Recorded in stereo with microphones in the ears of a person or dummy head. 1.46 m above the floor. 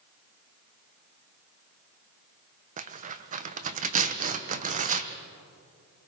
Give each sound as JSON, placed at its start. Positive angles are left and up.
{"t": 2.8, "sound": "tearing paper", "side_deg": -40, "distance_m": 1.0}